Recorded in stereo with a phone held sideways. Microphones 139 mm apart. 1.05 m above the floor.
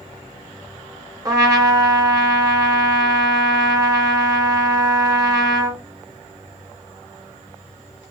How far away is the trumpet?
About 0.8 m.